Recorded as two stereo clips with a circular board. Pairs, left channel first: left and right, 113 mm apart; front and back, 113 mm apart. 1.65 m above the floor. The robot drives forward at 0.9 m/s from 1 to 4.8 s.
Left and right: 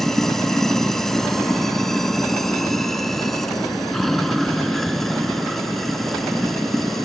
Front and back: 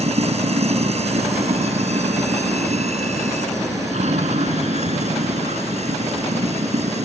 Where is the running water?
175° left; by 7.1 s straight behind.